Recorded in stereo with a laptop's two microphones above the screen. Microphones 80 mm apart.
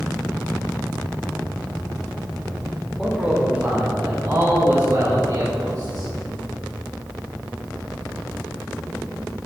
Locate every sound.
3.0 s a man speaking: 10° right (ahead or behind), 2.5 m; by 6.1 s 60° right (ahead or behind), 5.5 m